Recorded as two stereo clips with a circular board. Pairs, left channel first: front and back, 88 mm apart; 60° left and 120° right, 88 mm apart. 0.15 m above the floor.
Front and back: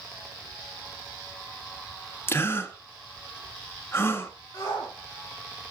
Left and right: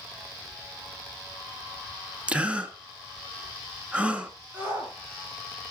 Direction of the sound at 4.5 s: 55° right.